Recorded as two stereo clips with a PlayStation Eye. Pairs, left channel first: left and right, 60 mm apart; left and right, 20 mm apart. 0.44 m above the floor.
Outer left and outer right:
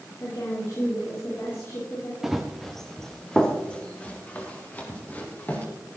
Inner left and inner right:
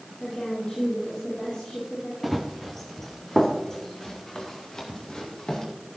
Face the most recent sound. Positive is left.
turn(degrees=30)  # may be behind; listen again after turning